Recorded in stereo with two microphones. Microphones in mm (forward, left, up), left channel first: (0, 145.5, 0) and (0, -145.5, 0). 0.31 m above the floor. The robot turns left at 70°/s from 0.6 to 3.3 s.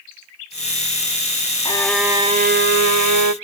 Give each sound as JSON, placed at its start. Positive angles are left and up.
{"t": 1.6, "sound": "a violin", "azimuth_deg": 20, "distance_m": 0.5}